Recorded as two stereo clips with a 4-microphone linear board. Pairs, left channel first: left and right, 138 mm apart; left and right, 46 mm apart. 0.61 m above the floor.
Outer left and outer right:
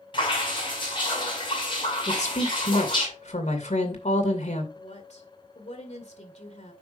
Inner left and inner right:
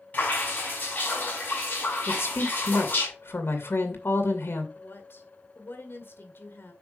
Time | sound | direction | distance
0.1 | dripping | 40° left (ahead or behind) | 6 m
2.1 | a woman speaking | 65° left (ahead or behind) | 2.5 m
4.8 | a woman speaking | 60° left (ahead or behind) | 2 m